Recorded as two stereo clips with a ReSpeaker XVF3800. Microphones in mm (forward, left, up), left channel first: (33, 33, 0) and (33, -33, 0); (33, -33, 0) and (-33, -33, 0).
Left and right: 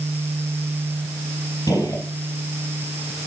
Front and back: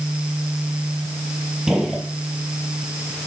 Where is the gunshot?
100° left, 3.5 m.